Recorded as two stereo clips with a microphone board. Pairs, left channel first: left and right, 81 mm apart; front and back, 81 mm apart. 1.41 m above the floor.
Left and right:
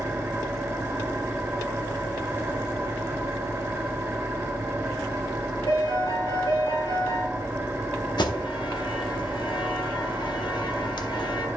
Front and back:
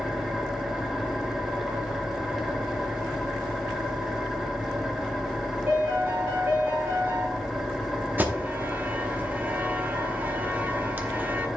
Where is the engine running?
95° right, 1.0 m.